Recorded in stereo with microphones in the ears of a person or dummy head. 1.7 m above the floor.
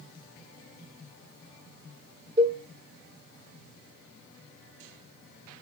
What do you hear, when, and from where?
2.4 s a cowbell: 35° right (ahead or behind), 2.5 m